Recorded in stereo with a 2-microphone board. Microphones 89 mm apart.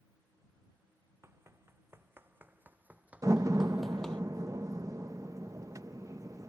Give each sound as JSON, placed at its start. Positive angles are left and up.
{"t": 1.2, "sound": "running footsteps", "side_deg": -30}
{"t": 3.2, "sound": "a door slam", "side_deg": -35}